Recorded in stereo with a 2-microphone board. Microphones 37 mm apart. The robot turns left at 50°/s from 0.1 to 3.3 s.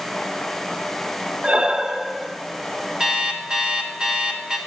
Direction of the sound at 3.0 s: 20° right (ahead or behind).